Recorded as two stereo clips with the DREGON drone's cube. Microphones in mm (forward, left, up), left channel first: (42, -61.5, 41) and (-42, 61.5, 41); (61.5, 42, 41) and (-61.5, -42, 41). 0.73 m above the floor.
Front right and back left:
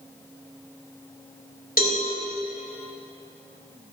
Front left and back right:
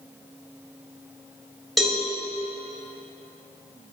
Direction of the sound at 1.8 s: 55° right.